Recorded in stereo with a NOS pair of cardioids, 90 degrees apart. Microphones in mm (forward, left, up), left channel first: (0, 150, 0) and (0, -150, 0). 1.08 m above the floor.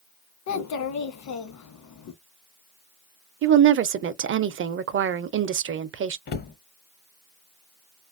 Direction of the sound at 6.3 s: 35° left.